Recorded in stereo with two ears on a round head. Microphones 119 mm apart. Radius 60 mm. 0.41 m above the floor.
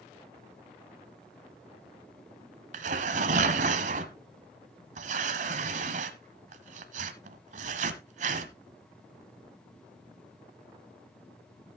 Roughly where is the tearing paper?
Right.